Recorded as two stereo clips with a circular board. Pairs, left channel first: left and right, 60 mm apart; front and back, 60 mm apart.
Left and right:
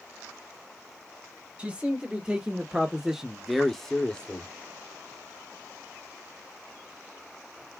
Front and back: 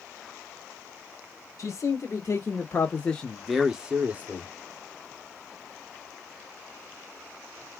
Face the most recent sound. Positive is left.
turn(degrees=150)